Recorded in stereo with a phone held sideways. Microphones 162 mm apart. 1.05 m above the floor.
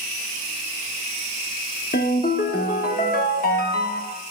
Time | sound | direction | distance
1.9 | a ringtone | 65° left (ahead or behind) | 0.9 m